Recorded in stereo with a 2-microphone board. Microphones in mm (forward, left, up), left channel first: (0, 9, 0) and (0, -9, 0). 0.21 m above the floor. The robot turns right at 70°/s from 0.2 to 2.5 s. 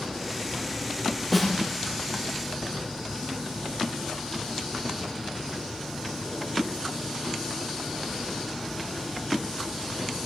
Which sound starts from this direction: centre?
A snare drum, at 1.3 s.